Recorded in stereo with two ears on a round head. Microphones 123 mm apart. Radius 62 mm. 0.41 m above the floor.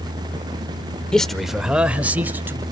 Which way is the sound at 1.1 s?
5° left (ahead or behind).